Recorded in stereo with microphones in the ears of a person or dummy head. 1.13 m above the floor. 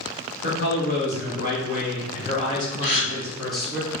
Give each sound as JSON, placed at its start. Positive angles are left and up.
{"t": 0.4, "sound": "a man speaking", "side_deg": 55, "distance_m": 2.0}
{"t": 2.8, "sound": "a gasp", "side_deg": 65, "distance_m": 1.9}